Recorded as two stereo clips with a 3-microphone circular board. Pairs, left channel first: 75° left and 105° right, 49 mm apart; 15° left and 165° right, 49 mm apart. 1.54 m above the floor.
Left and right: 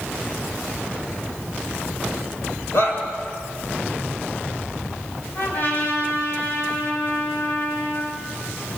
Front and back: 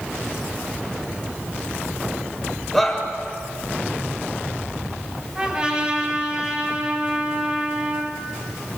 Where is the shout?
100° left, 7 m.